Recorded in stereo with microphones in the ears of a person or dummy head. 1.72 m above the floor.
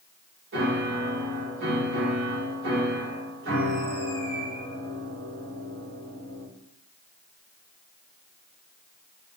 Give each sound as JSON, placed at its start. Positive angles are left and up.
{"t": 0.5, "sound": "a piano", "side_deg": -60, "distance_m": 2.5}